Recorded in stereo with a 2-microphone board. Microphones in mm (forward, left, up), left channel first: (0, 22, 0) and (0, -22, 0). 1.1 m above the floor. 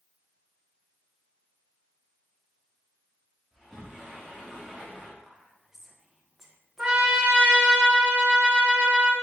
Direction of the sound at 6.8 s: 25° right (ahead or behind).